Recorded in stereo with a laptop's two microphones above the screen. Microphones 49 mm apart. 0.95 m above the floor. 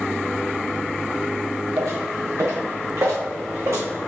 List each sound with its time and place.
1.8 s footsteps: 70° right (ahead or behind), 3.5 m; by 3.9 s 75° right (ahead or behind), 4 m